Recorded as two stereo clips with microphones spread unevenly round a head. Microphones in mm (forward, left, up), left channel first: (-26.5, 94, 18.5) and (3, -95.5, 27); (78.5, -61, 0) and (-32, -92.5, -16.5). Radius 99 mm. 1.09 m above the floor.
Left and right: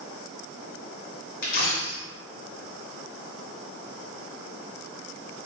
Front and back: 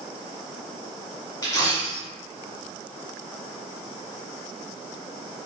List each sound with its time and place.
1.4 s a dropped coin: 60° left, 1.4 m